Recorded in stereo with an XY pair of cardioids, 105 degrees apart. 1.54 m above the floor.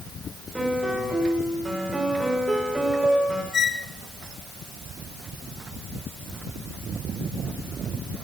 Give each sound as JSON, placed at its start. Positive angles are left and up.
{"t": 0.6, "sound": "a piano", "azimuth_deg": -15, "distance_m": 6.5}
{"t": 3.5, "sound": "a squeak", "azimuth_deg": 45, "distance_m": 1.6}